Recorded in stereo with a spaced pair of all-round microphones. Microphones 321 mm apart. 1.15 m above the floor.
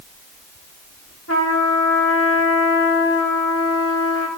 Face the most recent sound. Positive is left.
turn(degrees=45)  # may be behind; listen again after turning